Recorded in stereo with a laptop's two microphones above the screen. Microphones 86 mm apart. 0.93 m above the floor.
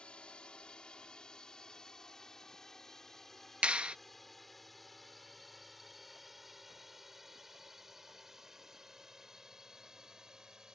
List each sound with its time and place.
0.0 s a drone: 10° left (ahead or behind); by 10.8 s 10° right (ahead or behind)
3.6 s a clap: 15° right (ahead or behind)